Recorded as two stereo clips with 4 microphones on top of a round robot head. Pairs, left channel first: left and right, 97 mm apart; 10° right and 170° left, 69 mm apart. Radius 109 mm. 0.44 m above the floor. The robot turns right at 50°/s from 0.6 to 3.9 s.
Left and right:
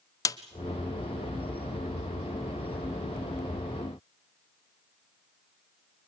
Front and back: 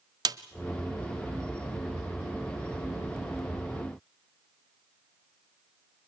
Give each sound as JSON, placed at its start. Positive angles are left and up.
{"t": 0.2, "sound": "a snare drum", "azimuth_deg": 145, "distance_m": 0.9}